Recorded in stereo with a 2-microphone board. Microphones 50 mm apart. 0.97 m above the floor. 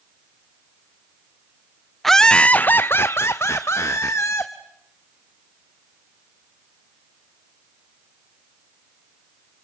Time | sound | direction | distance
2.0 | laughter | 5° left (ahead or behind) | 0.5 m